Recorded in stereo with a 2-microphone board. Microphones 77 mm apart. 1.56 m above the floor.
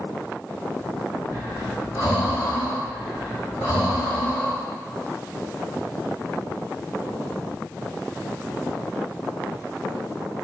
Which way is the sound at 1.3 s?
60° left (ahead or behind).